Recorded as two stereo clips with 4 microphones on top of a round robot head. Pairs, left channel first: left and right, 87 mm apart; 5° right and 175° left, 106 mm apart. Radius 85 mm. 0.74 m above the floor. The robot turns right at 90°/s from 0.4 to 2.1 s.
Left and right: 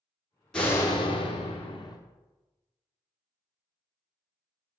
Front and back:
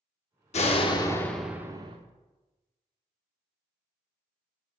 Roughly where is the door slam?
Ahead.